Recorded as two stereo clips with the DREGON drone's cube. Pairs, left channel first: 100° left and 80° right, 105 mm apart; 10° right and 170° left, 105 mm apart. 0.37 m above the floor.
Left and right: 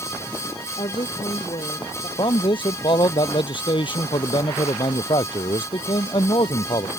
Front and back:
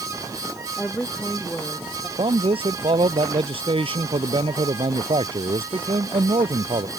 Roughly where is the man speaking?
Behind left.